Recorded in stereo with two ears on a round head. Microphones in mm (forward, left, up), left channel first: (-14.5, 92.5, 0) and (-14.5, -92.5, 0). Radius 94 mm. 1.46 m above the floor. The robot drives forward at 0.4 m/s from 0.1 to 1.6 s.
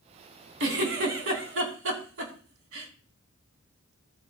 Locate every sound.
0.6 s a giggle: 65° right (ahead or behind), 3.5 m; by 2.9 s 70° right (ahead or behind), 3 m